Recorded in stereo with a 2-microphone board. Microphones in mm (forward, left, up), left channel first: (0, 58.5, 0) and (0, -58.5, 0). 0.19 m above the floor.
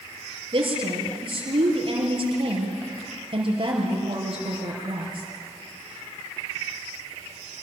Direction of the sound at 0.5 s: 45° right (ahead or behind).